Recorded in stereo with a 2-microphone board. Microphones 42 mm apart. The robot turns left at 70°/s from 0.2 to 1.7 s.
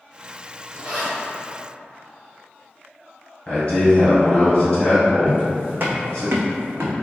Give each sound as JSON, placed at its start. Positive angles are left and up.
{"t": 0.7, "sound": "a zipper", "side_deg": -20, "distance_m": 1.5}
{"t": 3.5, "sound": "a man speaking", "side_deg": 30, "distance_m": 1.8}
{"t": 5.3, "sound": "footsteps", "side_deg": -30, "distance_m": 0.8}